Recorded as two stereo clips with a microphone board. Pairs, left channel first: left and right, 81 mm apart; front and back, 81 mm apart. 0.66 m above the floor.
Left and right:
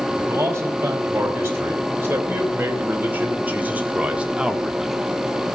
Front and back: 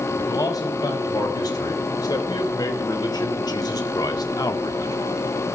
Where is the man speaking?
30° right, 4.5 m; by 5.0 s 5° right, 1.3 m.